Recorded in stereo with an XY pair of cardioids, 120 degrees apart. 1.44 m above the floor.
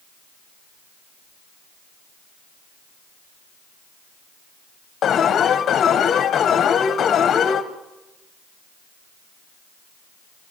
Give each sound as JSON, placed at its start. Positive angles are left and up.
{"t": 5.0, "sound": "an alarm", "azimuth_deg": 55, "distance_m": 1.6}